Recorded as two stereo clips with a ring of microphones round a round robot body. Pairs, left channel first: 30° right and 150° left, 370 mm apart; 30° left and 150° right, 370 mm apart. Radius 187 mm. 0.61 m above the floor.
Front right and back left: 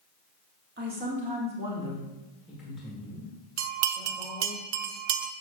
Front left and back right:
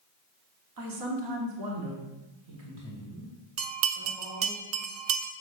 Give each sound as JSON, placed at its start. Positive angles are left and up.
{"t": 0.8, "sound": "a man speaking", "azimuth_deg": -150, "distance_m": 1.5}
{"t": 3.6, "sound": "a bell", "azimuth_deg": 175, "distance_m": 0.7}